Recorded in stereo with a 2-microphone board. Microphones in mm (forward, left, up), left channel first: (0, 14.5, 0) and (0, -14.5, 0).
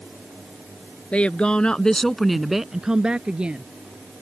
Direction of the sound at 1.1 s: 45° left (ahead or behind).